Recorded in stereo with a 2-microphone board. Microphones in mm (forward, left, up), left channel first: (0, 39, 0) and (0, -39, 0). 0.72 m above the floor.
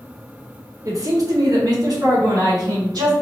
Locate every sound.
0.8 s a man speaking: 45° right (ahead or behind), 1.2 m; by 3.1 s 60° right (ahead or behind), 2.5 m